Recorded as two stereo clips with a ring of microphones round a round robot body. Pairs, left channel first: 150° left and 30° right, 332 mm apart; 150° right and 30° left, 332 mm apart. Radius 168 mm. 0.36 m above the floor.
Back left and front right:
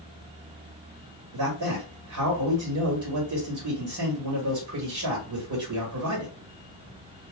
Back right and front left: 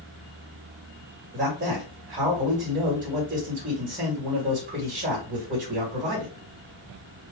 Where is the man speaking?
25° right, 1.9 m.